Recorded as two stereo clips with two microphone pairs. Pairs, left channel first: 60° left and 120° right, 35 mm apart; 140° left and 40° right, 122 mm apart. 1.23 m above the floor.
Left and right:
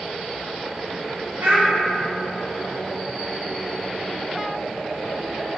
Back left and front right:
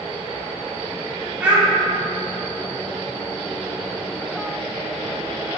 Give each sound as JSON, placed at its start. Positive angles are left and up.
{"t": 1.4, "sound": "a child speaking", "azimuth_deg": -120, "distance_m": 0.9}